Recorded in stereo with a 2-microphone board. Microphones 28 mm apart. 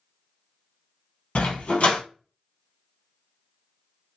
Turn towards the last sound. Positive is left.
turn(degrees=55)  # may be behind; listen again after turning